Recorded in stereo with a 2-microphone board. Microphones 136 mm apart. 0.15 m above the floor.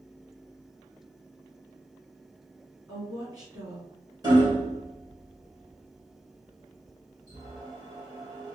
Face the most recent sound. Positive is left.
turn(degrees=-30)  # may be behind; listen again after turning